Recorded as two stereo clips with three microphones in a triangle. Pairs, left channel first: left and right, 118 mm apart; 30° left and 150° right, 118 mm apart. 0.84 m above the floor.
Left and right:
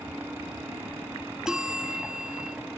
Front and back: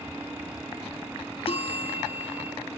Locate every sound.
1.5 s a bell: 5° right